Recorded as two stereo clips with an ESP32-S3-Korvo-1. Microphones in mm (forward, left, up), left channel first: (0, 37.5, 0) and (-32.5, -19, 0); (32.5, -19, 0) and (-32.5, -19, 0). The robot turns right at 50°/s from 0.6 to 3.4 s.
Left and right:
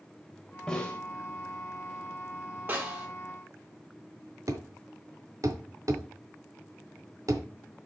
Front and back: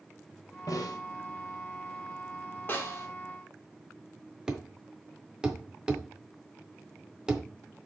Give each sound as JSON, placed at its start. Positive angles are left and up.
{"t": 0.7, "sound": "a snare drum", "azimuth_deg": -20, "distance_m": 1.7}
{"t": 2.7, "sound": "a snare drum", "azimuth_deg": -60, "distance_m": 2.5}
{"t": 4.5, "sound": "a thud", "azimuth_deg": -105, "distance_m": 1.2}